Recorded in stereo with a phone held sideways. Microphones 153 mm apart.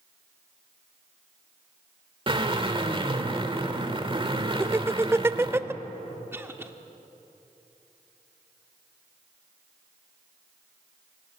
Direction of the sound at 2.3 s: 35° right (ahead or behind).